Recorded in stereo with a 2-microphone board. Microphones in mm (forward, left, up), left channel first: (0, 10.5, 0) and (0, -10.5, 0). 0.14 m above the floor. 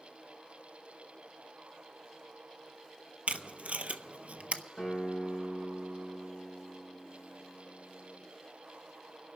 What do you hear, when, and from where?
3.3 s tape being pulled: 70° right (ahead or behind), 0.5 m
4.8 s a guitar: 20° left (ahead or behind), 4 m